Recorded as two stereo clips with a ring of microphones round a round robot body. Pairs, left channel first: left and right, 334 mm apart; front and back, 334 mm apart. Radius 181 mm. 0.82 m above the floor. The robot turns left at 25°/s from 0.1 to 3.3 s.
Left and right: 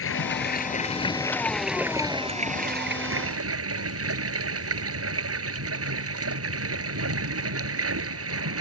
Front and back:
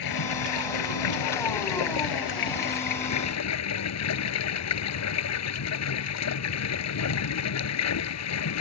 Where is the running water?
40° left; by 8.6 s 40° right.